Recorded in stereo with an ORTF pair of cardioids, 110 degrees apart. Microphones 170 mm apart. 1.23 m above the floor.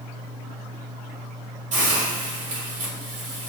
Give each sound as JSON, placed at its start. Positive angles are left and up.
{"t": 1.7, "sound": "a hiss", "azimuth_deg": -45, "distance_m": 1.1}